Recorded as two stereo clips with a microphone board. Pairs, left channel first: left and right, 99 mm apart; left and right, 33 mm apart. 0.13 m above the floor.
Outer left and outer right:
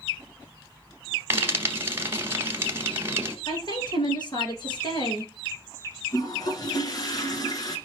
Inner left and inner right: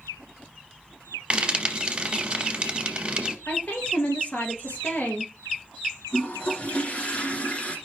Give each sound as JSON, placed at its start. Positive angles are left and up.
{"t": 1.3, "sound": "frying", "side_deg": -25, "distance_m": 1.5}
{"t": 3.5, "sound": "a woman speaking", "side_deg": 50, "distance_m": 2.5}
{"t": 6.1, "sound": "a toilet flushing", "side_deg": 40, "distance_m": 1.5}